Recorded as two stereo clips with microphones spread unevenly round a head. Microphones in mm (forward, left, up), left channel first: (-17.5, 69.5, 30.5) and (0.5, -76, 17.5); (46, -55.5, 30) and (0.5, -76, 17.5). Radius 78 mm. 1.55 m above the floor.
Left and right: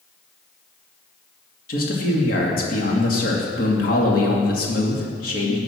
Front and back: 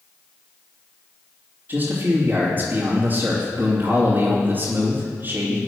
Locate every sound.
1.7 s a man speaking: 130° left, 2.5 m